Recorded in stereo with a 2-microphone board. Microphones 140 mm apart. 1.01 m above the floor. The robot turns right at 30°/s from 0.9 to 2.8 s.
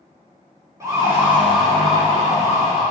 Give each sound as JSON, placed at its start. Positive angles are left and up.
{"t": 0.8, "sound": "a siren", "side_deg": -20, "distance_m": 6.0}